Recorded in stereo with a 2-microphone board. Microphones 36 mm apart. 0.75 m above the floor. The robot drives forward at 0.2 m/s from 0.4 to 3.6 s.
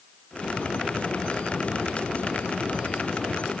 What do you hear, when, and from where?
Only background noise.